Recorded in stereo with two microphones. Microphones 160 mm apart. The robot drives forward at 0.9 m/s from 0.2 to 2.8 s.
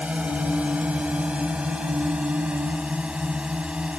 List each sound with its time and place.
0.0 s a drone: 10° right (ahead or behind); by 4.0 s 5° right (ahead or behind)